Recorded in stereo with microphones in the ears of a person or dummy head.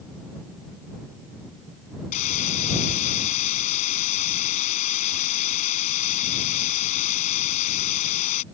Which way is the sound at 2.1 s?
45° left (ahead or behind).